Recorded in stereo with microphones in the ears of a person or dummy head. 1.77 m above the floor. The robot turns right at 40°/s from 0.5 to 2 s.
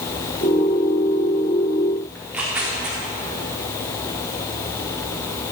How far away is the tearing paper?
About 3.5 m.